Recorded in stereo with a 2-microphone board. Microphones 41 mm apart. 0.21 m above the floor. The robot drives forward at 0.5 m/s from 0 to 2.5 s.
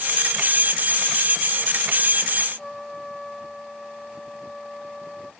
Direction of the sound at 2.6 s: 10° left (ahead or behind).